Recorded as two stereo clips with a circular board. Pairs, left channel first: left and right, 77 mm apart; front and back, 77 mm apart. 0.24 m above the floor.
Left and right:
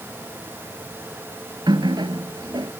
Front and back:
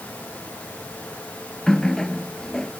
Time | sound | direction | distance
1.7 | a running tap | 85° right | ?